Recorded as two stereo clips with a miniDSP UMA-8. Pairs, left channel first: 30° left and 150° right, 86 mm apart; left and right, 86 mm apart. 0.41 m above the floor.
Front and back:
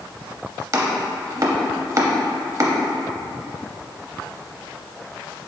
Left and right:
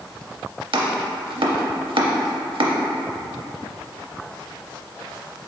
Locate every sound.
0.7 s chopping: 100° right, 0.5 m